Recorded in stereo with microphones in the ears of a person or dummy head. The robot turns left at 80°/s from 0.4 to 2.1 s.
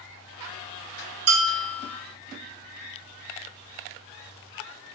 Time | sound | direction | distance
1.3 | a bell | 90° right | 0.8 m